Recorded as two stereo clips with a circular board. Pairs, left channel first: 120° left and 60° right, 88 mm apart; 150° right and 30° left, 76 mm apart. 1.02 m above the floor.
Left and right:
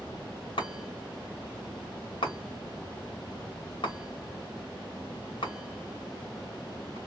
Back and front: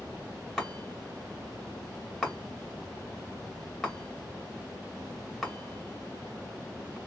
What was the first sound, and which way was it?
A chime, 125° left.